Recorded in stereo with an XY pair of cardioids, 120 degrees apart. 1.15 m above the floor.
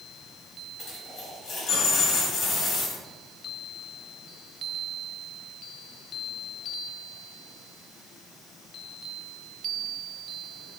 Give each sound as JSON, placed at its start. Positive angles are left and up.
{"t": 0.8, "sound": "a dropped coin", "azimuth_deg": 60, "distance_m": 1.4}